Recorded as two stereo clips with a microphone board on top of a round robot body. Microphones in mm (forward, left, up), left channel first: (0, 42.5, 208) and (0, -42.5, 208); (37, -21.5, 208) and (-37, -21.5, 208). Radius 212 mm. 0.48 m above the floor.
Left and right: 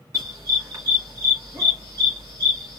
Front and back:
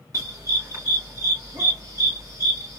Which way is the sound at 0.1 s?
140° right.